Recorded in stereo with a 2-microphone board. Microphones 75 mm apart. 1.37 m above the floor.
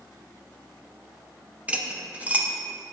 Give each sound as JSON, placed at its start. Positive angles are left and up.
{"t": 1.7, "sound": "cutlery clinking", "side_deg": -15, "distance_m": 0.7}